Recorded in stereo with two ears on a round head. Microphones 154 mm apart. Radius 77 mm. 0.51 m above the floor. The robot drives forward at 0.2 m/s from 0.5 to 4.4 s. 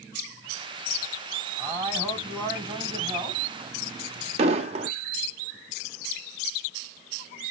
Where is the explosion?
40° right (ahead or behind), 0.6 m.